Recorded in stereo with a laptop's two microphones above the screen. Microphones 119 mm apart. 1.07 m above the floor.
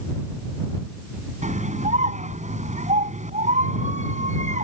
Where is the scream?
85° right.